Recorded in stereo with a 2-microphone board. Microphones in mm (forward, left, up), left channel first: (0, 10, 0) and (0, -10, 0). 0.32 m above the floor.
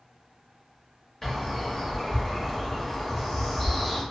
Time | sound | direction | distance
1.2 | a bird | 25° left (ahead or behind) | 1.0 m